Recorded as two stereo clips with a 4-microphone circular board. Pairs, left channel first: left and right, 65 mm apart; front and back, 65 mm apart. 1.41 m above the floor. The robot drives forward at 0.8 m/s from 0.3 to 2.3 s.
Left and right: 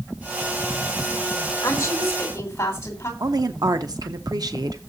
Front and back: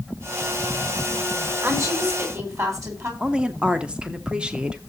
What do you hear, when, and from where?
1.6 s a woman speaking: 135° left, 3.5 m; by 3.1 s 140° left, 4 m
3.2 s a woman speaking: 105° right, 0.8 m